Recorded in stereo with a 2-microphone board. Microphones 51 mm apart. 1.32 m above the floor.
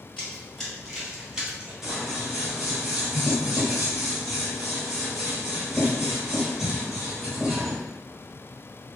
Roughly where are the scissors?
Centre.